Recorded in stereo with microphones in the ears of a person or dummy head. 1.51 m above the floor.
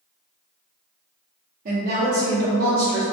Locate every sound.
1.6 s a woman speaking: 40° right (ahead or behind), 0.6 m